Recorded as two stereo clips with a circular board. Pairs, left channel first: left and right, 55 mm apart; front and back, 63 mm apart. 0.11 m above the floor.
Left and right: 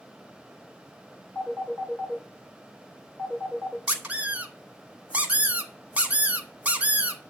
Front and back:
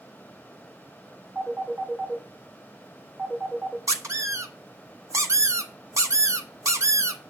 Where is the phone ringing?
120° left, 2.5 m.